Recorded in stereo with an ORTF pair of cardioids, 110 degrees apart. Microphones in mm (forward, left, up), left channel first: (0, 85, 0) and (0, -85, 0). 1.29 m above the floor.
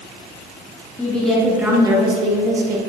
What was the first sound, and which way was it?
A woman speaking, 10° left.